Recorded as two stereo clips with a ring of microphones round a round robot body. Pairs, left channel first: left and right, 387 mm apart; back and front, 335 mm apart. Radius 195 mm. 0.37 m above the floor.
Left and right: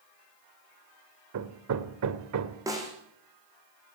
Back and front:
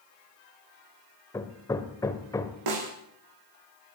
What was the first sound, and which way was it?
Hammering, 105° right.